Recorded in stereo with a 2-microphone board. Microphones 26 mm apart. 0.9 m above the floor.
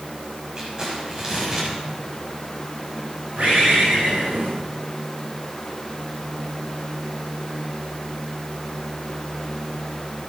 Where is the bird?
60° right (ahead or behind), 5 m.